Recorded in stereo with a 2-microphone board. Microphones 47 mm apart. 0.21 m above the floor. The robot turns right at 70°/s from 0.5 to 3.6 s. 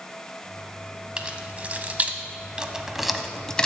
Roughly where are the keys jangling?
Right.